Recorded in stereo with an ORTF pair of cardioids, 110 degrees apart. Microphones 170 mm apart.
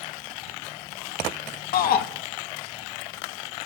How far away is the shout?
About 2.5 m.